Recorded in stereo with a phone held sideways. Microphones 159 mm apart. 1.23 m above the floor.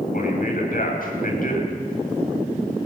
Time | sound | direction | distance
0.1 | a man speaking | 60° left (ahead or behind) | 8 m